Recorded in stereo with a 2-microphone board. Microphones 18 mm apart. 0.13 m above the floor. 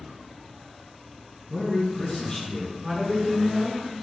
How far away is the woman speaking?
About 1.5 m.